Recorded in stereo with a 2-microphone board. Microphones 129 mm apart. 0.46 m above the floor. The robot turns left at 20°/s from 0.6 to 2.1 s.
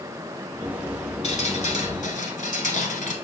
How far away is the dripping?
About 1.3 m.